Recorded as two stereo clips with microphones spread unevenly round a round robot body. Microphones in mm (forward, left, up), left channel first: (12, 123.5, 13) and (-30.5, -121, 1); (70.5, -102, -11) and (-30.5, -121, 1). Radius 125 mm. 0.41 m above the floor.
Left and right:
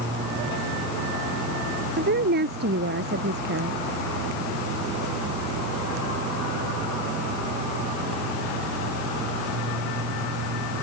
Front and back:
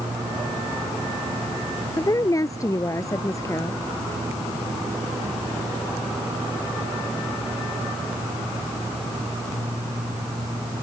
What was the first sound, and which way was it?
A woman speaking, 45° right.